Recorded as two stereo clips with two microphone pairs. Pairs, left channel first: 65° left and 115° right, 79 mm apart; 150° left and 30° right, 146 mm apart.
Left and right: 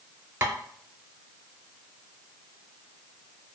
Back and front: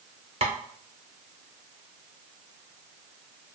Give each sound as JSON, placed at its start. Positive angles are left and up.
{"t": 0.4, "sound": "tapping", "azimuth_deg": -65, "distance_m": 0.5}